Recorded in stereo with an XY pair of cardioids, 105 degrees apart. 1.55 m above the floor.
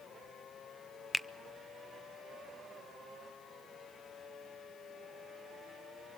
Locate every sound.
1.1 s a finger snap: 15° left, 0.6 m